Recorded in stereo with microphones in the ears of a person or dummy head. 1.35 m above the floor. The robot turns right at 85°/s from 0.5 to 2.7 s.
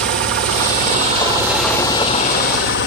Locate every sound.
0.0 s an engine running: 90° right, 1.4 m; by 2.9 s 95° left, 1.4 m